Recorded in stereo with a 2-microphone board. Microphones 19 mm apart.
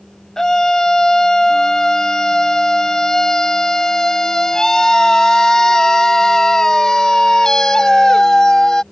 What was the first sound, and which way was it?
A scream, 30° left (ahead or behind).